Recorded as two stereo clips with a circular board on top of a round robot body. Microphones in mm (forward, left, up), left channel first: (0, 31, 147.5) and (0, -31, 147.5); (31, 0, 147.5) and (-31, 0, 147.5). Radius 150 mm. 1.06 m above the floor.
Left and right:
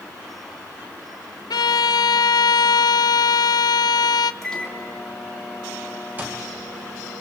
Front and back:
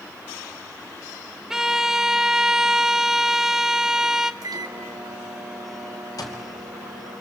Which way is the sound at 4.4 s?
170° left.